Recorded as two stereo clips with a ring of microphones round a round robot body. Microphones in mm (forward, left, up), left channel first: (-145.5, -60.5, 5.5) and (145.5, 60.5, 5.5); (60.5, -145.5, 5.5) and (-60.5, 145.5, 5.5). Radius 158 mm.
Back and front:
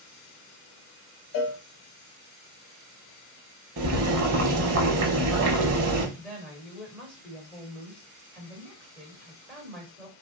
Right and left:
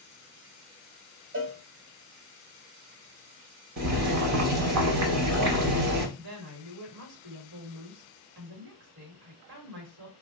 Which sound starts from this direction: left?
Boiling, at 3.8 s.